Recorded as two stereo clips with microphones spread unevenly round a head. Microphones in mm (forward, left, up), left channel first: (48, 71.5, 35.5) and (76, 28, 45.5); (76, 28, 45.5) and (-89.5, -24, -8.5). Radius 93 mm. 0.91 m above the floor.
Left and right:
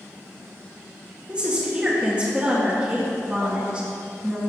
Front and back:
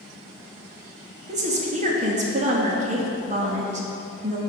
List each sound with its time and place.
1.3 s a woman speaking: 135° right, 1.8 m